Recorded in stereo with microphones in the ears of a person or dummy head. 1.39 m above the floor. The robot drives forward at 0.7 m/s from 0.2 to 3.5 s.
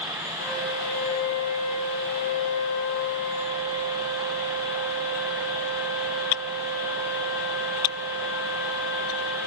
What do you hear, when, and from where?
0.4 s a flute: 80° left, 5 m; by 9.4 s 65° left (ahead or behind), 5 m